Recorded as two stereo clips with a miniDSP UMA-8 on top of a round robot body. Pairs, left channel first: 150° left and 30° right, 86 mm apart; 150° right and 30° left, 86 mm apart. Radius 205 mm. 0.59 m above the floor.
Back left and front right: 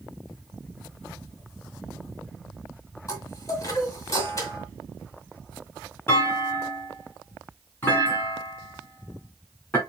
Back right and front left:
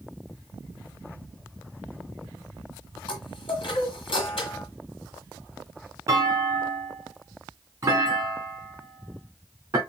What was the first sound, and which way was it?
A chime, 160° right.